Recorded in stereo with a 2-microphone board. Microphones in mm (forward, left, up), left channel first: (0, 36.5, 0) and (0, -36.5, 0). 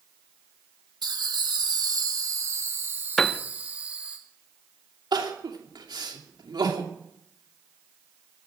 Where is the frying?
I don't hear frying.